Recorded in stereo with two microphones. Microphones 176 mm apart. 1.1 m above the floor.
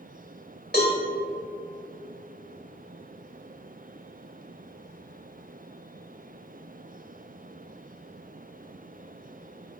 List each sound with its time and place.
0.7 s a cowbell: 65° left (ahead or behind), 3.5 m